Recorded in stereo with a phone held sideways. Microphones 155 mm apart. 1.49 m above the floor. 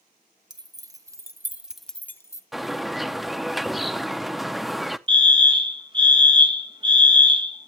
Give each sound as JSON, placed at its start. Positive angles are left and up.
{"t": 0.5, "sound": "keys jangling", "side_deg": -25, "distance_m": 1.1}
{"t": 2.5, "sound": "a bird", "side_deg": 0, "distance_m": 0.5}
{"t": 5.1, "sound": "a fire alarm", "side_deg": -30, "distance_m": 1.3}